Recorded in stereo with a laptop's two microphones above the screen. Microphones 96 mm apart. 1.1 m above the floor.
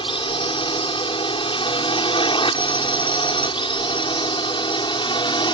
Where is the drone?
60° left (ahead or behind); by 5.5 s 55° left (ahead or behind).